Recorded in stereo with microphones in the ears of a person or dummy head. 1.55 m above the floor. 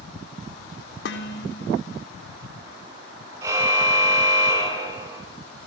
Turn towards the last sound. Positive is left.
turn(degrees=-15)  # may be behind; listen again after turning